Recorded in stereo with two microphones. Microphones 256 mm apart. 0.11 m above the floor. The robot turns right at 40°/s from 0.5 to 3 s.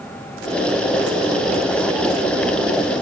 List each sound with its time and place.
Only background noise.